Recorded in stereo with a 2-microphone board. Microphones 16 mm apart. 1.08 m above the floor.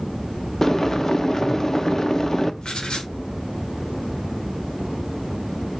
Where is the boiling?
25° left (ahead or behind), 0.9 m.